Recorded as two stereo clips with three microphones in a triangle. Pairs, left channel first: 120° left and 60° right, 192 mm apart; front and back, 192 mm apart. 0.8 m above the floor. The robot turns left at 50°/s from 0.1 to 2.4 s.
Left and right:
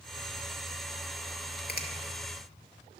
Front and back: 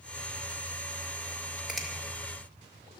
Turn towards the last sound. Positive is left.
turn(degrees=60)